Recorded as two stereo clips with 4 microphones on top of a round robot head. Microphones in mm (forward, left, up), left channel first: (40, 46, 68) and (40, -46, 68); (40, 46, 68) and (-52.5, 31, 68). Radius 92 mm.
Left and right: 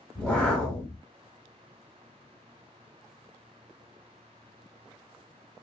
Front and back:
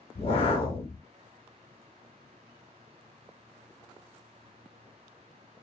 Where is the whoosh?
15° left, 0.9 m.